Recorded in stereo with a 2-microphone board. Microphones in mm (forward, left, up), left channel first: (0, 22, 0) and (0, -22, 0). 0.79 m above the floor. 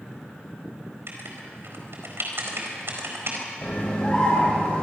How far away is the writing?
About 4 m.